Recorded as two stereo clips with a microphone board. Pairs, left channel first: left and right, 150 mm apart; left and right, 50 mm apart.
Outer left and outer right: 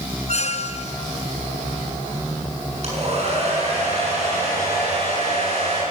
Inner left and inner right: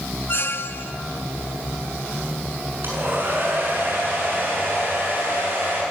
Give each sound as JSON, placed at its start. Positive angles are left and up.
{"t": 0.3, "sound": "a squeak", "side_deg": 50, "distance_m": 0.8}
{"t": 2.8, "sound": "a hair dryer", "side_deg": -50, "distance_m": 7.0}